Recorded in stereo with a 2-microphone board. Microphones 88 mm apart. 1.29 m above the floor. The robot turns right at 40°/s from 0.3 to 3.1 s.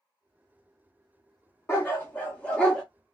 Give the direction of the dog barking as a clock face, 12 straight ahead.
8 o'clock.